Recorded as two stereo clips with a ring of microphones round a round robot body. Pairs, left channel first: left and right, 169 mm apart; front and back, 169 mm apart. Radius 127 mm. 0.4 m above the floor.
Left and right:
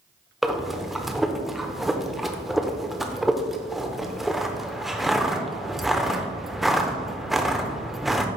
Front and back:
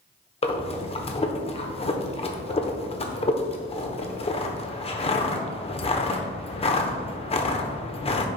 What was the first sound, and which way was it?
Breathing, 5° right.